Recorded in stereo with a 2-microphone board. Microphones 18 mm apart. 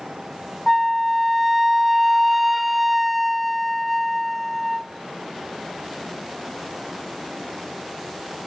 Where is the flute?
5° right (ahead or behind), 0.7 m.